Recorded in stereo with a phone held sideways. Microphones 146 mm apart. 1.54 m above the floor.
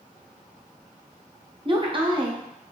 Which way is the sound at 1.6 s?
35° right (ahead or behind).